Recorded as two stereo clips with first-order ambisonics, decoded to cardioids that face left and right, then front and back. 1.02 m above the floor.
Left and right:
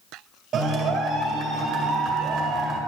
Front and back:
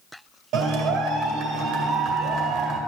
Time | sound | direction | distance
0.5 | a clap | 145° right | 2.5 m